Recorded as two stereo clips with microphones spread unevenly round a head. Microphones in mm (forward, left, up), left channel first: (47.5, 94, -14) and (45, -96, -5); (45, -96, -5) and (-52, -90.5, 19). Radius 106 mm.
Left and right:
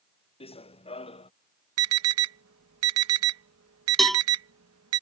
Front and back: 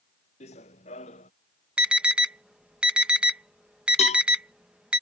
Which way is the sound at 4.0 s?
Straight ahead.